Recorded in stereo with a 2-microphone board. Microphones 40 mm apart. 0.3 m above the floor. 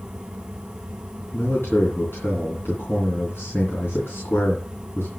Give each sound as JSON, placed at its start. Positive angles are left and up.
{"t": 1.3, "sound": "a man speaking", "side_deg": 70, "distance_m": 3.5}